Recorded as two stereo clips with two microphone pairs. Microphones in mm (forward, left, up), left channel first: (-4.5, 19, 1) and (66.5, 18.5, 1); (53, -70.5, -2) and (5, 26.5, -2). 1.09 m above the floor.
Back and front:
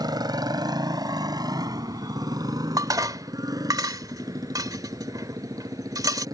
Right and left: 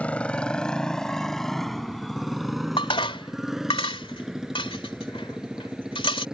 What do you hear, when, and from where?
0.0 s a motorcycle: 15° left; by 6.3 s 35° left
2.8 s dishes clattering: 30° right